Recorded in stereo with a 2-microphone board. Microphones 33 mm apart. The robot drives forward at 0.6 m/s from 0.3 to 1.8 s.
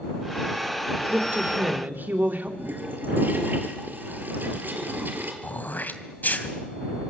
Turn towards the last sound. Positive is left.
turn(degrees=60)  # may be behind; listen again after turning